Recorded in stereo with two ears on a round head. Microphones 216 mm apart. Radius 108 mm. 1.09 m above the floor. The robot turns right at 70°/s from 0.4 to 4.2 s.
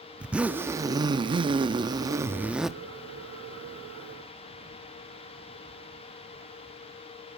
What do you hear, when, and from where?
0.2 s a zipper: 5° right (ahead or behind), 0.5 m; by 2.7 s centre (ahead or behind), 0.5 m